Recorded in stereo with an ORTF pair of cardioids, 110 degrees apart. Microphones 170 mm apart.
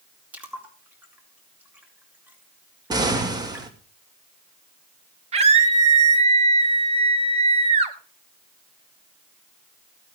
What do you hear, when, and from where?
0.3 s a splash: 10° right, 4 m
2.9 s an explosion: 25° right, 2.5 m
5.3 s a scream: 40° right, 3 m